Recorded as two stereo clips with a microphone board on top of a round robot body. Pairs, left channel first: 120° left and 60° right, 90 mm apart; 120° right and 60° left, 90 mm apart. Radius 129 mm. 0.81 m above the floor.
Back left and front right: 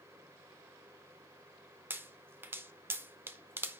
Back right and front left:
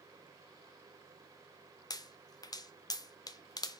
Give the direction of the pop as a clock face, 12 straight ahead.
4 o'clock.